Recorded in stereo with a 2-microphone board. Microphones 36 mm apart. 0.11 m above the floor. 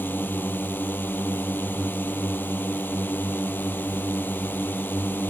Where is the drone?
65° left (ahead or behind).